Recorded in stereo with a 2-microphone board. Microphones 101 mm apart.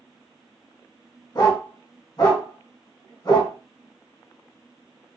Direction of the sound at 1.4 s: 40° left (ahead or behind).